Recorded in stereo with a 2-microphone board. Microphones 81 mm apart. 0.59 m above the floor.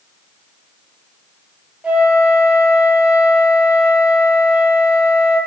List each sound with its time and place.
1.8 s a flute: 15° right (ahead or behind), 0.6 m